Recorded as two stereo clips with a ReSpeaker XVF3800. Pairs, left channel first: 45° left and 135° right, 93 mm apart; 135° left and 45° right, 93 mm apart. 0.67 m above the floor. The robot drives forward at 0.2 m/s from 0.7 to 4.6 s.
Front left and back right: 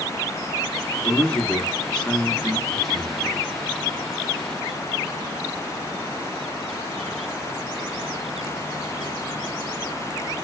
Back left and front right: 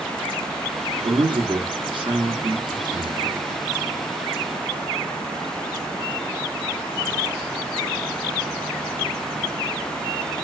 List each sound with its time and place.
1.0 s a man speaking: 30° right, 1.0 m; by 3.4 s 50° right, 0.7 m